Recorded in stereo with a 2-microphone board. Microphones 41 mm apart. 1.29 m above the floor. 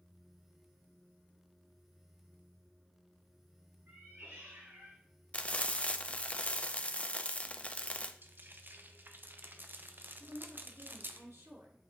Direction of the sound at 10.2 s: 75° right (ahead or behind).